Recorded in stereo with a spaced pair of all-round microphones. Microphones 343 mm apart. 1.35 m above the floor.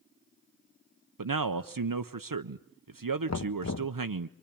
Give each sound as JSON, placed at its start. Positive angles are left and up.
{"t": 1.2, "sound": "a man speaking", "side_deg": -70, "distance_m": 0.7}
{"t": 3.3, "sound": "knocking", "side_deg": 50, "distance_m": 0.7}